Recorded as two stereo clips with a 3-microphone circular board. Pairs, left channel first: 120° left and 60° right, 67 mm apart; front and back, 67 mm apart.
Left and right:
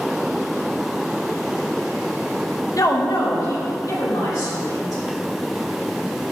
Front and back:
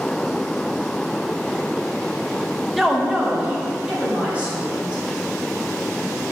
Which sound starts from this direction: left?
A woman speaking, at 2.8 s.